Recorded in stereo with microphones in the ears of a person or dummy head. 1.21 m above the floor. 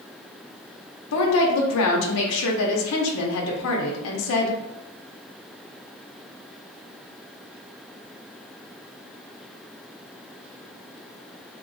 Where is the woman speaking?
80° left, 0.7 m.